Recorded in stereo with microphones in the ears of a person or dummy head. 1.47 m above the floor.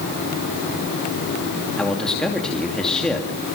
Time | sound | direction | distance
1.8 | a man speaking | 5° left (ahead or behind) | 2.5 m